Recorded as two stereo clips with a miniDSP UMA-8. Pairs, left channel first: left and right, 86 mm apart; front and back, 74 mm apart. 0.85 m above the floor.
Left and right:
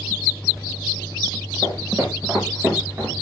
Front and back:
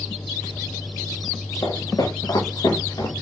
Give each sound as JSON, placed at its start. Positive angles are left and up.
{"t": 1.6, "sound": "footsteps", "azimuth_deg": -30, "distance_m": 6.5}